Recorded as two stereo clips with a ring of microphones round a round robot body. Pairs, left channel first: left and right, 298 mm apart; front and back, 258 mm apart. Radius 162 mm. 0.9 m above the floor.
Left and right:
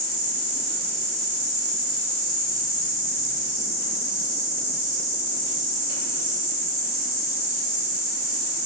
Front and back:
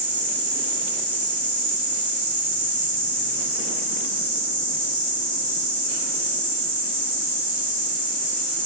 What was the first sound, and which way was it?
An insect, 115° right.